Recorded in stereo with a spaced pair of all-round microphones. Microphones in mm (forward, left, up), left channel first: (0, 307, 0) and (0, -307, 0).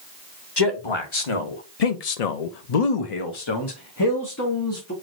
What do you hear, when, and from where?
0.6 s a man speaking: 40° left (ahead or behind), 1.2 m; by 4.9 s 20° left (ahead or behind), 1.4 m